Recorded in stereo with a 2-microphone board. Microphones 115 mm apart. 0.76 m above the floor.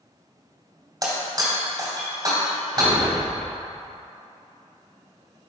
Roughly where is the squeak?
I don't hear a squeak.